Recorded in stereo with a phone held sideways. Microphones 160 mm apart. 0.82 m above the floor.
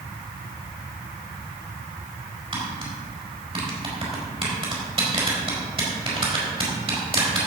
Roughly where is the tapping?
Right.